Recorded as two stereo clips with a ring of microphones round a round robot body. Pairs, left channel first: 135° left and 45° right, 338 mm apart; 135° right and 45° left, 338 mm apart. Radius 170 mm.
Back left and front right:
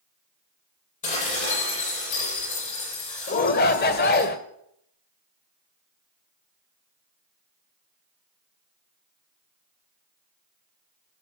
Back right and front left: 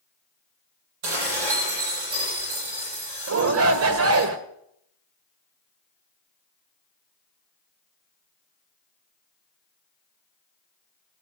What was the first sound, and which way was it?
Dishes clattering, 65° left.